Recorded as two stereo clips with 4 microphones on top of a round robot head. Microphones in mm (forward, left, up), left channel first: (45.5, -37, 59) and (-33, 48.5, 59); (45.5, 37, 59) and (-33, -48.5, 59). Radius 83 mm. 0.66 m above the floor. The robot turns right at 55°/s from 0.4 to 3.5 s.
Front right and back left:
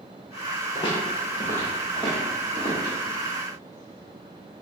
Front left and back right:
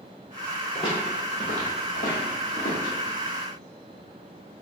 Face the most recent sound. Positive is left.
turn(degrees=115)